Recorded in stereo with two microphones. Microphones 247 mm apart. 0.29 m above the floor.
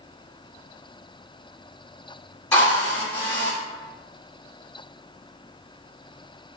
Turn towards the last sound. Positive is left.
turn(degrees=10)  # may be behind; listen again after turning